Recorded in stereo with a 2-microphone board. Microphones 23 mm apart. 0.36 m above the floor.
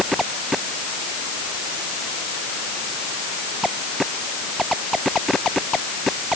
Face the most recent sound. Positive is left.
No sound to turn to.